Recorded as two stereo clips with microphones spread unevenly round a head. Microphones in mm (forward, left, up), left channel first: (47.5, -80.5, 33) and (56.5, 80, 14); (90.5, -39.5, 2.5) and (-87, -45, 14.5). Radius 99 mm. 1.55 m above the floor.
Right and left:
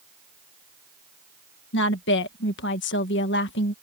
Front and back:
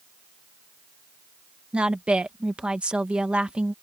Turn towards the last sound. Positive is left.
turn(degrees=-95)